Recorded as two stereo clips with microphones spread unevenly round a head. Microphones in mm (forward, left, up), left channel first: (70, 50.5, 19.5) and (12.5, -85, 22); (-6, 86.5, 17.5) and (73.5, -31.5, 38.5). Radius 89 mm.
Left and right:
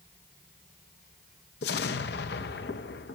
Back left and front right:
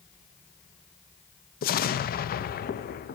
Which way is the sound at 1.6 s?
100° left.